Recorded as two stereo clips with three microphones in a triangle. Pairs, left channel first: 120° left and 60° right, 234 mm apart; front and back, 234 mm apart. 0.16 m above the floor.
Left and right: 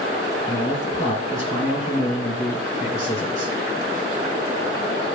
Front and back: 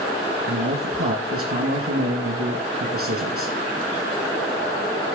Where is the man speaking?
Straight behind, 4.5 m.